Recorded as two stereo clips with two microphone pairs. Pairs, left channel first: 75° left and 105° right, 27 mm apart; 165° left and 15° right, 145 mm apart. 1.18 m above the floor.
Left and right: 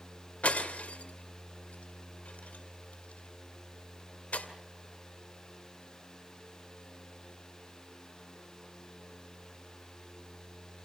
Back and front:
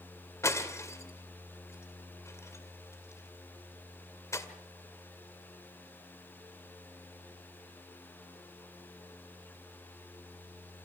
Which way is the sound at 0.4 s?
95° left.